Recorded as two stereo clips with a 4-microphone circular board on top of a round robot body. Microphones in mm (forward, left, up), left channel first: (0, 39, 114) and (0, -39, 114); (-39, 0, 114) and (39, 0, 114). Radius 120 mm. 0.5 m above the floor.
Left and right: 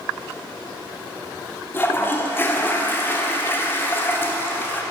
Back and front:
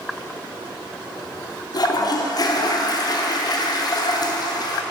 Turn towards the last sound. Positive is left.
turn(degrees=150)